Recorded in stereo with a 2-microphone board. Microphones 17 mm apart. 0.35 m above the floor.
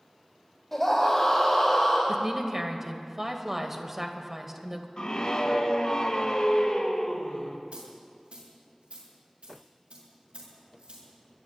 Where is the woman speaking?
20° right (ahead or behind), 1.6 m.